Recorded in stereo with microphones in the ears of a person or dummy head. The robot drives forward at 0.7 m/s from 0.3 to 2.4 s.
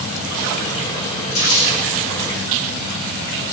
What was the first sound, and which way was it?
Crumpling, 70° left (ahead or behind).